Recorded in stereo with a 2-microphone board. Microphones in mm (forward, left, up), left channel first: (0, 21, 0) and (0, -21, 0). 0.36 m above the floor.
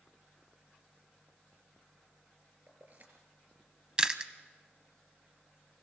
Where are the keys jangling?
45° right (ahead or behind), 4.5 m.